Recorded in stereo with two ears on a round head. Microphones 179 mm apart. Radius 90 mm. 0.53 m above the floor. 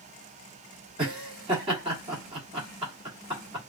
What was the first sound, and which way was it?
Laughter, 25° right (ahead or behind).